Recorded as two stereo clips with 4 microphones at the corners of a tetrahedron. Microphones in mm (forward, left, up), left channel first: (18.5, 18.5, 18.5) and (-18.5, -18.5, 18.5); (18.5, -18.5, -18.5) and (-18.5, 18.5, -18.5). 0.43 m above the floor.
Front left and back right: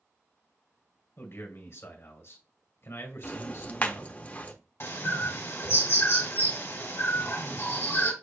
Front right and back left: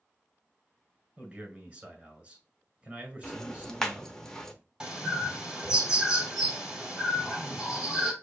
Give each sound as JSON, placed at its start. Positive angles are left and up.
{"t": 1.2, "sound": "a man speaking", "azimuth_deg": 65, "distance_m": 1.8}
{"t": 3.2, "sound": "ticking", "azimuth_deg": 25, "distance_m": 0.8}
{"t": 4.8, "sound": "a bird", "azimuth_deg": 55, "distance_m": 1.8}